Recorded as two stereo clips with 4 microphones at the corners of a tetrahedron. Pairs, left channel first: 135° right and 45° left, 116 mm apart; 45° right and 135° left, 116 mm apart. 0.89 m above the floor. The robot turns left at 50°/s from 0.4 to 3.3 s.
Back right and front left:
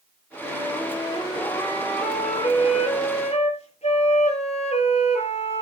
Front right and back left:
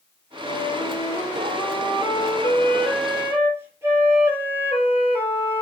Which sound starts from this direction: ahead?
A flute, at 0.4 s.